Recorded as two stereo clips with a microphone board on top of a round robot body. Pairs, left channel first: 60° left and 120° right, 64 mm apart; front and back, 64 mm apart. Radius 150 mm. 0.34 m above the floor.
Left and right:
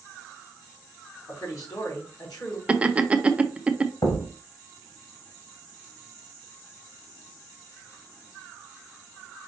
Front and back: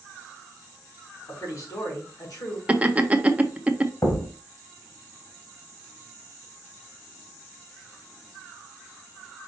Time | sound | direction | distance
1.3 | a man speaking | 35° left | 3.5 m
2.7 | laughter | 160° right | 0.9 m
4.0 | a thud | 40° left | 1.1 m